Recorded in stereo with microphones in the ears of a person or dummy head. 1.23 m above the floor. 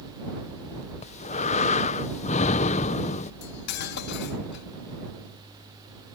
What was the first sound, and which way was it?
Breathing, 35° left (ahead or behind).